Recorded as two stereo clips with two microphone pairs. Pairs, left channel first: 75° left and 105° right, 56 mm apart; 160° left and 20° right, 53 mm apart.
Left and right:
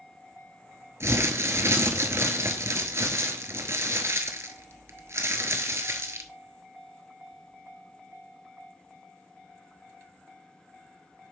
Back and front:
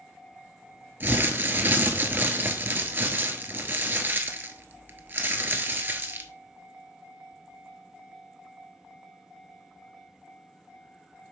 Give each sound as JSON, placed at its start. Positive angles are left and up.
{"t": 1.0, "sound": "crumpling", "azimuth_deg": -65, "distance_m": 1.0}